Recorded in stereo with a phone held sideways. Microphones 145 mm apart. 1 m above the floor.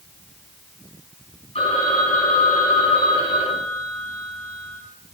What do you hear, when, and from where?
1.6 s a phone ringing: 45° left (ahead or behind), 4.5 m